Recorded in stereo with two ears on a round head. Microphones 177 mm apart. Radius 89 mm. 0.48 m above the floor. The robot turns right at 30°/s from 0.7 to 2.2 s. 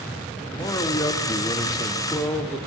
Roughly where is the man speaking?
Centre.